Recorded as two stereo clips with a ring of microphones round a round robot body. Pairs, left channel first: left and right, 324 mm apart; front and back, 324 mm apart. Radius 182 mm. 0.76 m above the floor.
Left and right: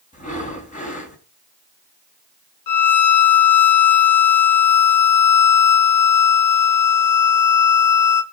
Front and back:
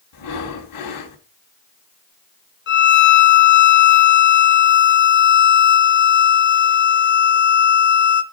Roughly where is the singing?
No singing in this recording.